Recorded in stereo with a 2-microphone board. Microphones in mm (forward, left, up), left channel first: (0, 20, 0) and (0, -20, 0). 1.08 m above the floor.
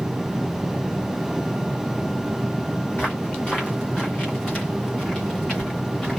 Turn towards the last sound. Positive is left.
turn(degrees=20)  # may be behind; listen again after turning